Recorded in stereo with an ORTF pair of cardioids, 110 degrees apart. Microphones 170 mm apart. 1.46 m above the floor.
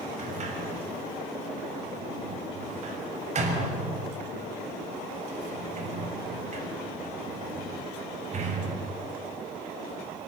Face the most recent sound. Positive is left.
turn(degrees=-45)